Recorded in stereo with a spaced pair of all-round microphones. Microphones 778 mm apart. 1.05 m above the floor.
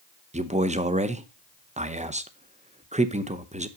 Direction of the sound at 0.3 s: 10° right (ahead or behind).